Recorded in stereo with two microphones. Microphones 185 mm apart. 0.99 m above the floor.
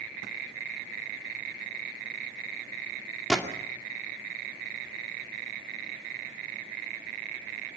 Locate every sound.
3.3 s a gunshot: 5° left (ahead or behind), 2 m